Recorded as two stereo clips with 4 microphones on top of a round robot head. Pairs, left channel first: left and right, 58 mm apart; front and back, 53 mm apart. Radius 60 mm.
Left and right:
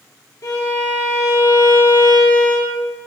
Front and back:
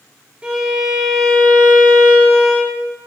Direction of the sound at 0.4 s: 110° left.